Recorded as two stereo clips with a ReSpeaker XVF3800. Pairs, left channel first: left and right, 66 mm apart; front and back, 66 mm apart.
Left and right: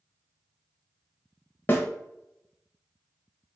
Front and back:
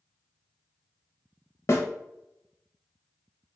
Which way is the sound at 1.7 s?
35° left.